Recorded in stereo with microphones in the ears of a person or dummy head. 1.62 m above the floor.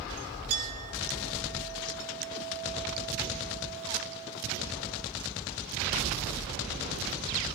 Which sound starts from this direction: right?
A clink, at 0.5 s.